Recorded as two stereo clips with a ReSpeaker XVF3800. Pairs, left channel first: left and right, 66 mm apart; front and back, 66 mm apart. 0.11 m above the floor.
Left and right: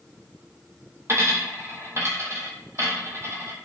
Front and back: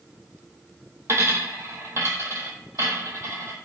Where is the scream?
I don't hear a scream.